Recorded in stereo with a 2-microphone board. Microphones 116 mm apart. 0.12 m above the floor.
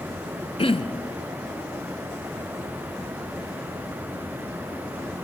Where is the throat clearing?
55° left (ahead or behind), 0.8 m.